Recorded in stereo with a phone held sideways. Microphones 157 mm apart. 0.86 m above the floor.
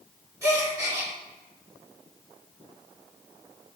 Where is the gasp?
20° right (ahead or behind), 2 m.